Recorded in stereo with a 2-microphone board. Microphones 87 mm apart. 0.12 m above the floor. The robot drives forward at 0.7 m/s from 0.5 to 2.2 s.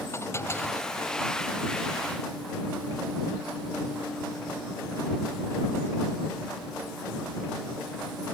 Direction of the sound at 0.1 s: 30° left (ahead or behind).